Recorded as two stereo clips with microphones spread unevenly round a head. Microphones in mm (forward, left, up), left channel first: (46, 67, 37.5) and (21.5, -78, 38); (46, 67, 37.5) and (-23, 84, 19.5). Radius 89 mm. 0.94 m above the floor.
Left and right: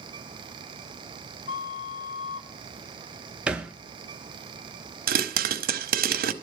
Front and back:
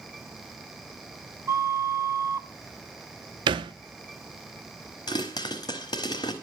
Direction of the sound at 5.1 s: 75° right.